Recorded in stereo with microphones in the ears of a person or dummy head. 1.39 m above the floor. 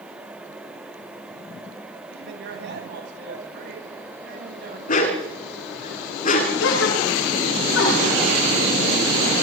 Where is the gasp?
85° left, 10 m.